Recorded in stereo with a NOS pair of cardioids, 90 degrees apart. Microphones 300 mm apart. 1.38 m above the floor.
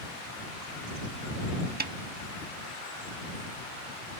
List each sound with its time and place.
1.8 s a snare drum: 30° right